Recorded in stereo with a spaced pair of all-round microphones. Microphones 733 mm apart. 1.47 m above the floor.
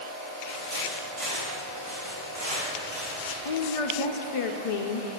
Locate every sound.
0.5 s footsteps: 40° right (ahead or behind), 1.9 m; by 3.4 s 35° right (ahead or behind), 4.5 m
3.5 s a woman speaking: 50° left (ahead or behind), 0.5 m